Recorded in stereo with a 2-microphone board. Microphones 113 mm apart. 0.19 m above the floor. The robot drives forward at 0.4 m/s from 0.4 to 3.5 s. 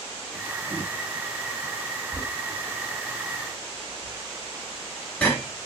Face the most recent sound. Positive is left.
turn(degrees=10)  # may be behind; listen again after turning